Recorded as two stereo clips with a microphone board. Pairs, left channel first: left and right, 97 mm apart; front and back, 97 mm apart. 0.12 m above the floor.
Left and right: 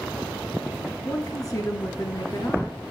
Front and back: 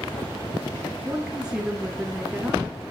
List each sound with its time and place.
1.1 s a woman speaking: 105° left, 1.4 m